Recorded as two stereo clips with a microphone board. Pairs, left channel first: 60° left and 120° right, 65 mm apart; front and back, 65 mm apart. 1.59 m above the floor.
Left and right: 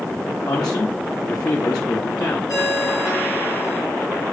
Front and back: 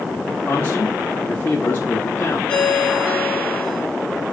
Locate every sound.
0.5 s a man speaking: 60° left, 1.2 m
2.5 s a ringtone: 65° left, 3 m